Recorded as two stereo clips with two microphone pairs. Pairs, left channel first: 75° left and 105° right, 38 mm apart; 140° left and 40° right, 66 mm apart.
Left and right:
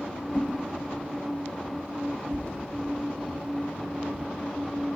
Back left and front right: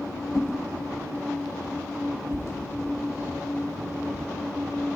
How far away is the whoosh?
About 1.4 m.